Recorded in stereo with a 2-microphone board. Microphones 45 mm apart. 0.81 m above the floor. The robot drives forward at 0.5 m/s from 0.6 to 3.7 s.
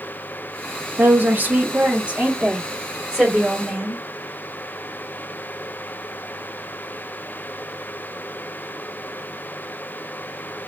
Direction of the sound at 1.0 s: 45° right (ahead or behind).